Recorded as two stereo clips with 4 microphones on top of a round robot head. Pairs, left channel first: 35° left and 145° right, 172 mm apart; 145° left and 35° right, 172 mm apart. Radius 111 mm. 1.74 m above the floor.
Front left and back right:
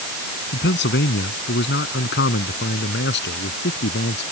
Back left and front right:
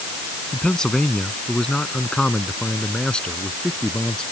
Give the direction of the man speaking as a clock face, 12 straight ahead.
10 o'clock.